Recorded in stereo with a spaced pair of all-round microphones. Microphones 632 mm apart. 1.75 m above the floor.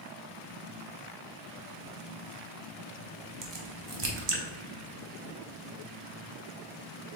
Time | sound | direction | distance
3.4 | a crack | 45° right (ahead or behind) | 0.7 m